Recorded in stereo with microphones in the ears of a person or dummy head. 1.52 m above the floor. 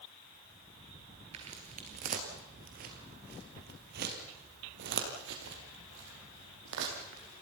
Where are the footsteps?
30° right (ahead or behind), 2.0 m; by 7.4 s 70° right (ahead or behind), 4 m.